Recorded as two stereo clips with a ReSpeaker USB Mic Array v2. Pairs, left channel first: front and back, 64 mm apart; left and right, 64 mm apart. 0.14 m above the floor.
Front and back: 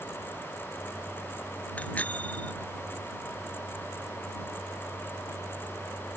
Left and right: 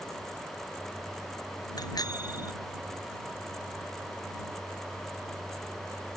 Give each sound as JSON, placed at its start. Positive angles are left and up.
{"t": 1.8, "sound": "a bicycle bell", "azimuth_deg": 70}